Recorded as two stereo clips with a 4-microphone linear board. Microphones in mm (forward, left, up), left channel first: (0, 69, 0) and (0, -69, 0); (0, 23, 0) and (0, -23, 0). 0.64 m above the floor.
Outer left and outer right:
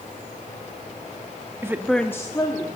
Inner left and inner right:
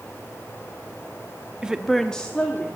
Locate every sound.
1.6 s a woman speaking: 20° right (ahead or behind), 0.6 m; by 2.7 s 30° left (ahead or behind), 1.2 m